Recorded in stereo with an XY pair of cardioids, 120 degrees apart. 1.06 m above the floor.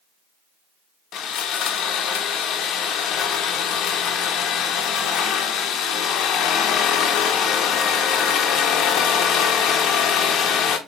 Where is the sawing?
65° left, 0.6 m.